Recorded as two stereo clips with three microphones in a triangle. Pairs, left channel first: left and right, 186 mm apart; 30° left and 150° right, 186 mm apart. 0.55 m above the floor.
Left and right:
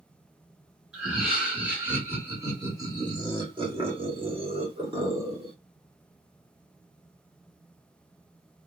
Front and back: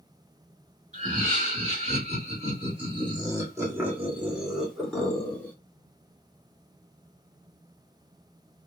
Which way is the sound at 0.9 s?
170° right.